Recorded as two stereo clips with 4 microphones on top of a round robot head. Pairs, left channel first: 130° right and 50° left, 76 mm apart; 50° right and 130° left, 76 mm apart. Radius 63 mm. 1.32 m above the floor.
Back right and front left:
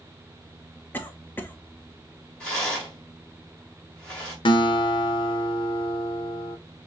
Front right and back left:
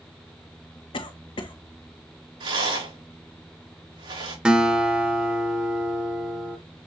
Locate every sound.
0.9 s a cough: 65° right, 1.0 m
2.4 s a rattle: 150° left, 3.5 m
4.5 s a guitar: 150° right, 0.8 m